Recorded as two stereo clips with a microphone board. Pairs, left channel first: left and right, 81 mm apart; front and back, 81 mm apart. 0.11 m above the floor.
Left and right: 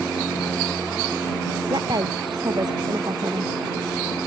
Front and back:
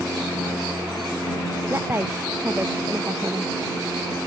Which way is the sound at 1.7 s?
120° right.